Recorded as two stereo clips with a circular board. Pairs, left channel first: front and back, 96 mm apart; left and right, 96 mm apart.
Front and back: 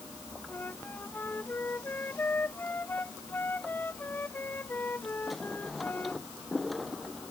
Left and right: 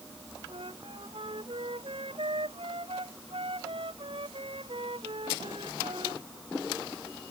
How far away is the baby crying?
I don't hear a baby crying.